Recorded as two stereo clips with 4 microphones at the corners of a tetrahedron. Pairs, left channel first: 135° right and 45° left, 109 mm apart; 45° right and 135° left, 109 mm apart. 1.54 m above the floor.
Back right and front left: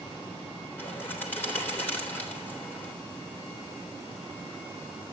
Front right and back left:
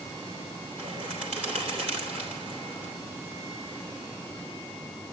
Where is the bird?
155° left, 3.5 m.